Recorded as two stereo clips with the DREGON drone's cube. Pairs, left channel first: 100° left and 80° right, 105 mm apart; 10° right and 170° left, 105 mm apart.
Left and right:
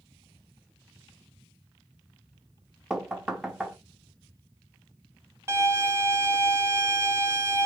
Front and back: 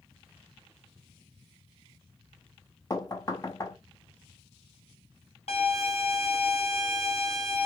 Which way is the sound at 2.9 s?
Straight ahead.